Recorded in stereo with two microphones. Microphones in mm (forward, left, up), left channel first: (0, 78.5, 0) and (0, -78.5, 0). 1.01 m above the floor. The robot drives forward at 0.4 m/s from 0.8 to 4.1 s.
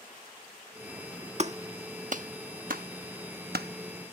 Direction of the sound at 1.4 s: 45° right (ahead or behind).